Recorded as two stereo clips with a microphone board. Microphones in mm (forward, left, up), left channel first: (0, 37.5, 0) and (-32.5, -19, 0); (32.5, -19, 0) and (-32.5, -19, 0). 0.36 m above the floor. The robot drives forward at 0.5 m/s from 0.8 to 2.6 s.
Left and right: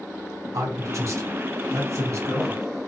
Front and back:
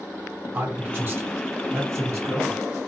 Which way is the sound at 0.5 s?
125° right.